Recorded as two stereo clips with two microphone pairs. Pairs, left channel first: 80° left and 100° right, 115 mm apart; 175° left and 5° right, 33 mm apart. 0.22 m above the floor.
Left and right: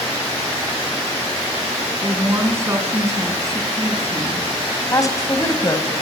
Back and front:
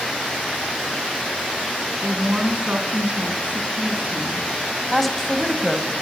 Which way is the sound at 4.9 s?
100° left.